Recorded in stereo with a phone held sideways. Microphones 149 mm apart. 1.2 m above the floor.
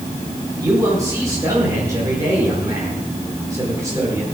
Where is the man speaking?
20° right (ahead or behind), 4.5 m.